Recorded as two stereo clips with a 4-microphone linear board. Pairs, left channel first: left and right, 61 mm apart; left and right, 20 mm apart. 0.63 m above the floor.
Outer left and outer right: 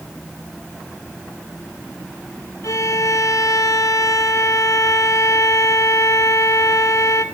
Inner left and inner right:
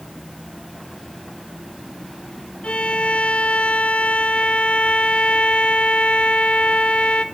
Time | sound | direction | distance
2.6 | a violin | 70° left (ahead or behind) | 1.5 m